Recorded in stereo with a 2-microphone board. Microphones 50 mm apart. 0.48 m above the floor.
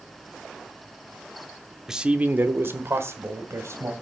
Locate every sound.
1.9 s a man speaking: 10° right (ahead or behind), 0.8 m; by 3.9 s 70° right (ahead or behind), 2.5 m